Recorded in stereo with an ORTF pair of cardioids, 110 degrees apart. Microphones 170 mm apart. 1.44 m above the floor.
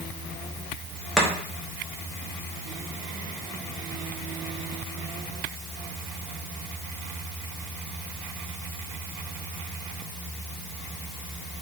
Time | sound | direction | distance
1.2 | chopping | straight ahead | 0.6 m